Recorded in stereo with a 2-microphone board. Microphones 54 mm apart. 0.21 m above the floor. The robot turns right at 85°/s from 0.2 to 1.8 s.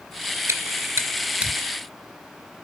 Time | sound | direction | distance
0.5 | chewing | 65° right (ahead or behind) | 2.5 m